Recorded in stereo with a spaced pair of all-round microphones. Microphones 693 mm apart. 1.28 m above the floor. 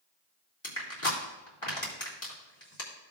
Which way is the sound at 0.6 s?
40° left (ahead or behind).